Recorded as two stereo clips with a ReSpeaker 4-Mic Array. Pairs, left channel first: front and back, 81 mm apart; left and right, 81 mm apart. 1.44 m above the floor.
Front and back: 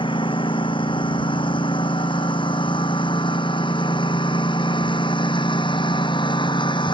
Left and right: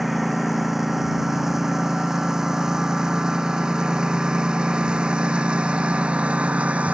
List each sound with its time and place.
0.0 s a lawn mower: straight ahead; by 7.0 s 15° right